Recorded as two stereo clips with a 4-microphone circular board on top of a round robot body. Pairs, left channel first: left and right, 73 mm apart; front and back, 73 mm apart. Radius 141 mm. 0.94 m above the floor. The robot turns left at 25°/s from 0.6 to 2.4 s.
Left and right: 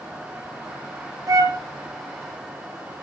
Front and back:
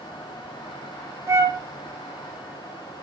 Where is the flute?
130° right, 1.1 m; by 1.6 s 135° right, 1.1 m.